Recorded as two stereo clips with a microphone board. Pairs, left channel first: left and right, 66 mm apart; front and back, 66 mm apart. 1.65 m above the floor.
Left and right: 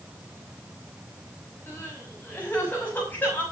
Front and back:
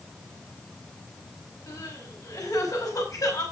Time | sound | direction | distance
1.7 | crying | 25° left | 6 m